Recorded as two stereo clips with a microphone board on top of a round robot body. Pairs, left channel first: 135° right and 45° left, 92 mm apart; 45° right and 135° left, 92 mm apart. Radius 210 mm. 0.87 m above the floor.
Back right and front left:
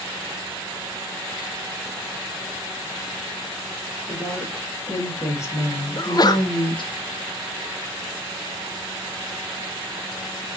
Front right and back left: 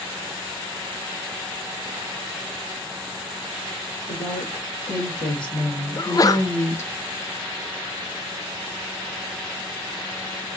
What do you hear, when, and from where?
4.1 s a woman speaking: 60° right, 2 m; by 6.9 s 110° right, 1.3 m
6.0 s a sneeze: 90° right, 0.6 m